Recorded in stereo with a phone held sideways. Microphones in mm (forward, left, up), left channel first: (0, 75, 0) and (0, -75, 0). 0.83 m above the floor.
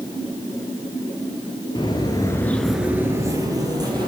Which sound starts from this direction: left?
Footsteps, at 1.8 s.